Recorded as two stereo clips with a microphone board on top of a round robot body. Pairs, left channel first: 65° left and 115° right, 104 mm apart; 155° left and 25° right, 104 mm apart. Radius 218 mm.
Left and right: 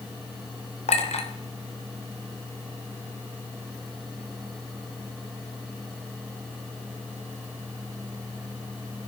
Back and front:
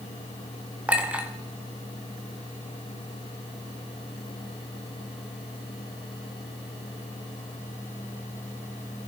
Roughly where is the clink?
Ahead left.